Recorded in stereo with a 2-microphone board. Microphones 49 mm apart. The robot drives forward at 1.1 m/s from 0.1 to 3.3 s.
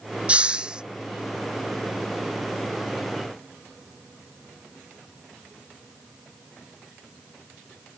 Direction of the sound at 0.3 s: 25° right (ahead or behind).